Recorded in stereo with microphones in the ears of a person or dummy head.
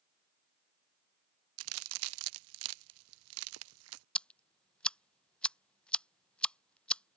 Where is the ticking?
5° left (ahead or behind).